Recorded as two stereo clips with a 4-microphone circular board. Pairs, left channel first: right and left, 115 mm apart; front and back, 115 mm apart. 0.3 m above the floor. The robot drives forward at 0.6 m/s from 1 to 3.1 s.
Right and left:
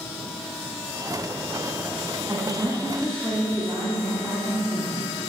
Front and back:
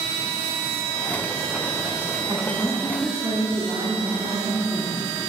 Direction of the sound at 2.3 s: 150° left.